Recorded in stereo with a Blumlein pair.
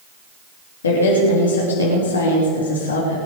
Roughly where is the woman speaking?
Left.